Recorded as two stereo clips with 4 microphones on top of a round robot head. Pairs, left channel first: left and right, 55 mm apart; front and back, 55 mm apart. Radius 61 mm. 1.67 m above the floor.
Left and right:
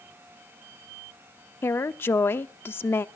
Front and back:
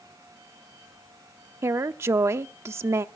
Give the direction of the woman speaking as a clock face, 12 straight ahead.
7 o'clock.